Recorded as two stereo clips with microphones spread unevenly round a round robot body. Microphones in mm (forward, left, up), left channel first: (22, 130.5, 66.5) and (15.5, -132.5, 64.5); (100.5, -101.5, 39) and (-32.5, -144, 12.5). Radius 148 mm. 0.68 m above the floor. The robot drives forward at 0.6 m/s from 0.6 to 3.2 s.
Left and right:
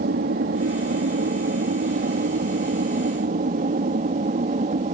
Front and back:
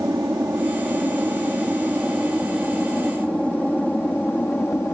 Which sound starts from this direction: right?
An aircraft, at 0.0 s.